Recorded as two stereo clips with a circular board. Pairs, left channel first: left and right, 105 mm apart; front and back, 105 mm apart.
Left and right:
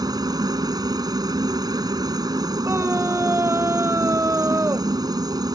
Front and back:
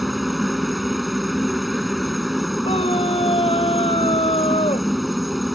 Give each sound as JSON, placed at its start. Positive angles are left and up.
{"t": 0.0, "sound": "a helicopter", "azimuth_deg": -90}
{"t": 2.6, "sound": "a scream", "azimuth_deg": -25}